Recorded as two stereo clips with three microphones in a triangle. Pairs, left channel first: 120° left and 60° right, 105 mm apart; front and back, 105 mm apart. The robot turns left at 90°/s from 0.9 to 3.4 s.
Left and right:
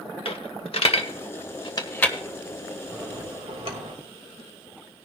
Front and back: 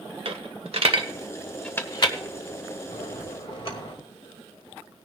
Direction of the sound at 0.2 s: 150° left.